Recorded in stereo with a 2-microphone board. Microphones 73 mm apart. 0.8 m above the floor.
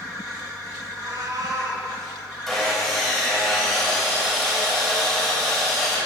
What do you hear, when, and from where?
0.9 s a cat meowing: 50° right (ahead or behind), 2.5 m
2.5 s sawing: centre (ahead or behind), 4 m